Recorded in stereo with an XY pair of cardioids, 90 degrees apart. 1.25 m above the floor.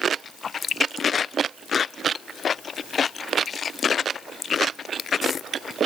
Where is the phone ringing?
I don't hear a phone ringing.